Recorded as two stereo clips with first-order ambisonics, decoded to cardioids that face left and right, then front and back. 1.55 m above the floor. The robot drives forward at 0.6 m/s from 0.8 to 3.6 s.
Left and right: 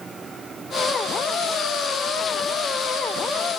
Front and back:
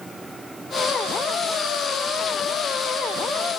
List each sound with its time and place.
Only background noise.